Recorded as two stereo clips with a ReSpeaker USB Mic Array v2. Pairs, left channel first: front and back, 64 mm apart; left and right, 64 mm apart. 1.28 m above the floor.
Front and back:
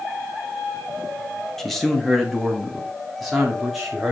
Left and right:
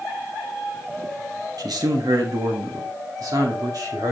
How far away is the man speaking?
About 1.3 m.